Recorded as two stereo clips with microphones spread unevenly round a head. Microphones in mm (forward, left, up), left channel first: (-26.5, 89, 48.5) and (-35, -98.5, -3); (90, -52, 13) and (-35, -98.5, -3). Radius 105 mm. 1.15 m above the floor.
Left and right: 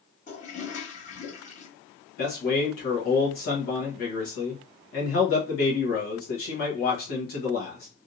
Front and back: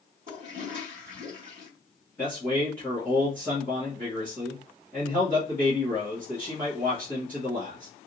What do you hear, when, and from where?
0.3 s a toilet flushing: 145° left, 1.5 m
2.2 s a man speaking: 105° left, 1.1 m